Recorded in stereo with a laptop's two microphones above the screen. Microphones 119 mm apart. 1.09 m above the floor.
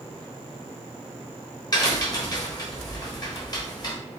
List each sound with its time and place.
1.7 s a crack: 35° left (ahead or behind), 1.1 m